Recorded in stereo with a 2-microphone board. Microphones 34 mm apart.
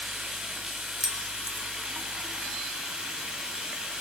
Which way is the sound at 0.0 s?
25° right (ahead or behind).